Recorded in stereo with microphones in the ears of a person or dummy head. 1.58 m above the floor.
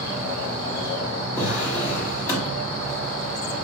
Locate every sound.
1.4 s a drawer: 10° left (ahead or behind), 1.4 m